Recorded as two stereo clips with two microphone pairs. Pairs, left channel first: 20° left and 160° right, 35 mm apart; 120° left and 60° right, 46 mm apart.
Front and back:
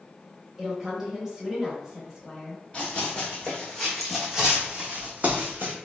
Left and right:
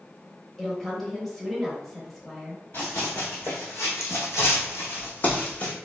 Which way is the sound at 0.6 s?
165° right.